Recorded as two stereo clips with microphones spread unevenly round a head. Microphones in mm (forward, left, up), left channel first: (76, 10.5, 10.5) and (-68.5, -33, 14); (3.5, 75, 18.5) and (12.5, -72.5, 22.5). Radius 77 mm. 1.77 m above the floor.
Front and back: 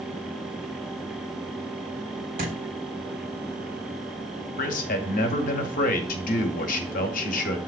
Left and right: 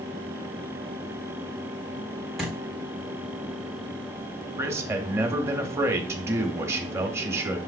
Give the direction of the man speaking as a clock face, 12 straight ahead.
12 o'clock.